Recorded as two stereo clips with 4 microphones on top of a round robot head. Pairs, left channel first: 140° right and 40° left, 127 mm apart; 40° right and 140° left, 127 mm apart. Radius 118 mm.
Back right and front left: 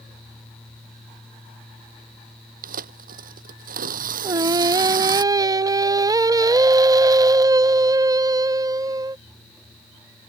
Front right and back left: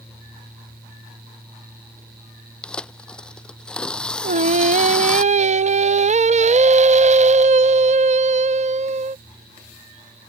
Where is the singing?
105° left.